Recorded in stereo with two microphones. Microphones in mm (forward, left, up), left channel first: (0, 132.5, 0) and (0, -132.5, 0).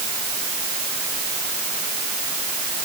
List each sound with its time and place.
Only background noise.